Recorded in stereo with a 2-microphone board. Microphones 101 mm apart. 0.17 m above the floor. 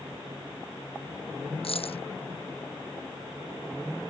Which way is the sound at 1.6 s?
70° left (ahead or behind).